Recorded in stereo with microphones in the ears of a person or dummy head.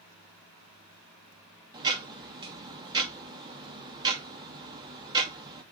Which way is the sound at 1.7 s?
15° right (ahead or behind).